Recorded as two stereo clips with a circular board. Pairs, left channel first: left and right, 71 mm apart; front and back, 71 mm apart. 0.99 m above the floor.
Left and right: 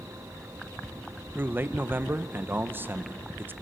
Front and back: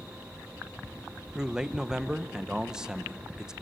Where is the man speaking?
110° right, 0.7 m.